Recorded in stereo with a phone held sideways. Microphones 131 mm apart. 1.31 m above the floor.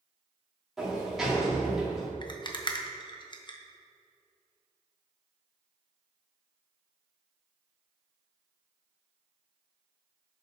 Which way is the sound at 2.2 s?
35° left (ahead or behind).